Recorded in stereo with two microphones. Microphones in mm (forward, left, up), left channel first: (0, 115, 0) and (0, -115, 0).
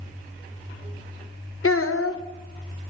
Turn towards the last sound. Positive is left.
turn(degrees=70)  # may be behind; listen again after turning